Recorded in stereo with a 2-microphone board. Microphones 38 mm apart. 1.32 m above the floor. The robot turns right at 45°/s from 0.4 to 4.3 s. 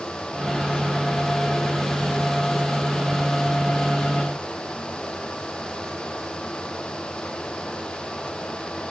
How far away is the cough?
I don't hear a cough.